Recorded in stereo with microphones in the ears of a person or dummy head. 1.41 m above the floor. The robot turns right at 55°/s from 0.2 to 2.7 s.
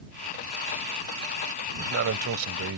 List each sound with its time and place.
1.7 s a man speaking: 135° right; by 2.8 s 80° right